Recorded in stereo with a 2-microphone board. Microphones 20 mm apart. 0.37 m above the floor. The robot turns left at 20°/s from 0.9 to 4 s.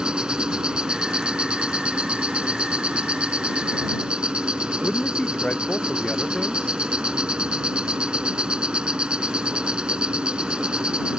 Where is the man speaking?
65° left (ahead or behind).